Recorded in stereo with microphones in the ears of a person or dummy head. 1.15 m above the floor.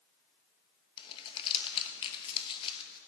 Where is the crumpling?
25° left (ahead or behind), 0.9 m.